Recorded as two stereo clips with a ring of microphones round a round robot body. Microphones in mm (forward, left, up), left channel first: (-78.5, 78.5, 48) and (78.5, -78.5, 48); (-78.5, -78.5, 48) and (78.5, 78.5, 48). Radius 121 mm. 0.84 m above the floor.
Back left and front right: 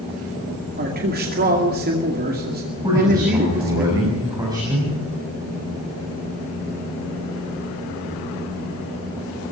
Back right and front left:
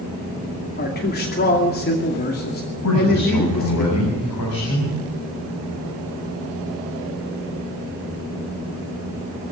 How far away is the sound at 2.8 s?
About 7 m.